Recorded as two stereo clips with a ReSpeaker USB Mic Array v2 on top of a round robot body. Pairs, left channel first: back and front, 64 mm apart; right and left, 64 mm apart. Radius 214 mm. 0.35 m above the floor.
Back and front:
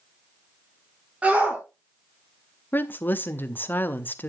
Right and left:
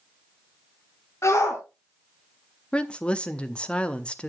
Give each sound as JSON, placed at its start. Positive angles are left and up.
{"t": 1.2, "sound": "a shout", "azimuth_deg": -65, "distance_m": 2.5}
{"t": 2.7, "sound": "a woman speaking", "azimuth_deg": -150, "distance_m": 1.3}